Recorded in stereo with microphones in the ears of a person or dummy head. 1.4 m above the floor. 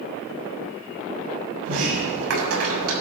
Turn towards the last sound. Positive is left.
turn(degrees=-85)